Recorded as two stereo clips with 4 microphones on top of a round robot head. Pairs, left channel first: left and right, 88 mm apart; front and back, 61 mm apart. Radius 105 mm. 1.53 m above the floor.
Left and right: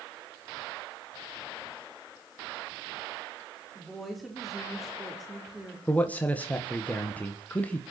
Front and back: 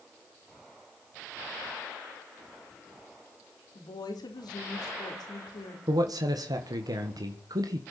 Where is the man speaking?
165° left, 1.7 m.